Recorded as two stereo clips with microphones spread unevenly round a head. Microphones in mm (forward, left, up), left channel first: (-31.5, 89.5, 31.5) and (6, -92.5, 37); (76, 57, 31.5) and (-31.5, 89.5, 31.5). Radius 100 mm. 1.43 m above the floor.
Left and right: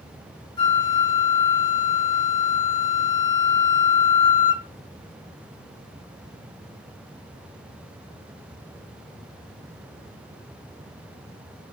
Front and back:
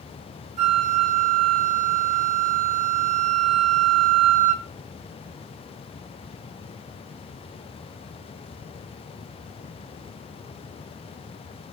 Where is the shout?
I don't hear a shout.